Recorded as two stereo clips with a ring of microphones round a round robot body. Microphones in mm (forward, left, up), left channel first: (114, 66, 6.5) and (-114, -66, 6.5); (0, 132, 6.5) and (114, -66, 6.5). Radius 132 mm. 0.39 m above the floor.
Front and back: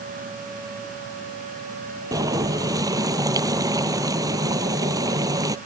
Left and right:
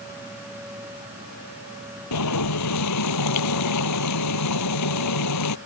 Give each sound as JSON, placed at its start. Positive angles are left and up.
{"t": 2.1, "sound": "boiling", "azimuth_deg": 135}